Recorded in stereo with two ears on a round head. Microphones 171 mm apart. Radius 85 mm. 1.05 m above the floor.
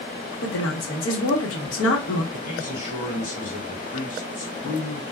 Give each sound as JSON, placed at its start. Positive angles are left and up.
{"t": 0.4, "sound": "a woman speaking", "side_deg": 70, "distance_m": 1.2}
{"t": 2.3, "sound": "a man speaking", "side_deg": 40, "distance_m": 1.7}